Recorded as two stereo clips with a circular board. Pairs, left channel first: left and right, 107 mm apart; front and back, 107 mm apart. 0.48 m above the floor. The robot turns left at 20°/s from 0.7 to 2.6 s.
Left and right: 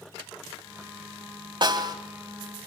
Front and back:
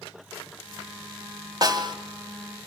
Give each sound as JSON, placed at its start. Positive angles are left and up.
{"t": 1.6, "sound": "a snare drum", "azimuth_deg": -130, "distance_m": 2.5}